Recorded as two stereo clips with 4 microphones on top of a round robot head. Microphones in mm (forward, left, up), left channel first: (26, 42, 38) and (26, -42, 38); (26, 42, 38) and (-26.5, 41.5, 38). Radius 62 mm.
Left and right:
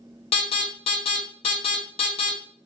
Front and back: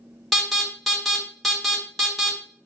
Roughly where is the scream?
I don't hear a scream.